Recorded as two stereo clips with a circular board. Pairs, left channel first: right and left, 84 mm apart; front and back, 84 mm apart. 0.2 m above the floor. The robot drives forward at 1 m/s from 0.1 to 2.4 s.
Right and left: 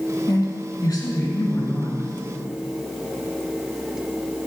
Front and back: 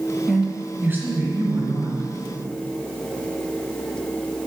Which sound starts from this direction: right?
A woman speaking, at 0.3 s.